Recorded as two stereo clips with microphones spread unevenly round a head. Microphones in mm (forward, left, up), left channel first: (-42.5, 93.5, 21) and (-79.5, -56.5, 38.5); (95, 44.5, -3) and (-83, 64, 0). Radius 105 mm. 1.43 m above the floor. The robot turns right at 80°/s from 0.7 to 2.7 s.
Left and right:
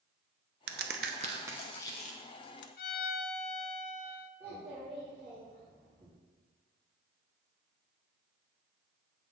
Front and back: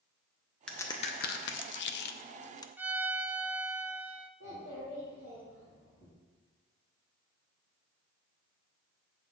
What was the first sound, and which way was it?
A crack, 90° right.